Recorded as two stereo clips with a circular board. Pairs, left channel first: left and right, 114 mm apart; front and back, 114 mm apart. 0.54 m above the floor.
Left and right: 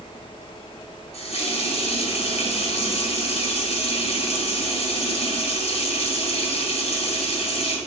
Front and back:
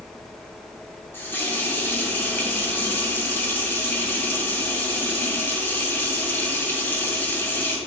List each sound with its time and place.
1.1 s a running tap: 70° left, 2 m